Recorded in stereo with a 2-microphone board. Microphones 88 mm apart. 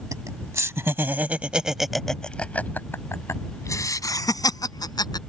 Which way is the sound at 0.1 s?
40° right (ahead or behind).